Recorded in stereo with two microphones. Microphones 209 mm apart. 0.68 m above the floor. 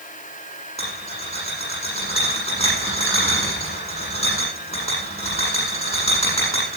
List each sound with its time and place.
0.8 s a rattle: 30° left (ahead or behind), 9 m